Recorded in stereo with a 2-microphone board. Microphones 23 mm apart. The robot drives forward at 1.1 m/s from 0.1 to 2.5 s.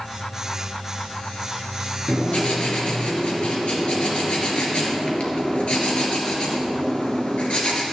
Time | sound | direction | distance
2.1 | writing | 70° left (ahead or behind) | 2.5 m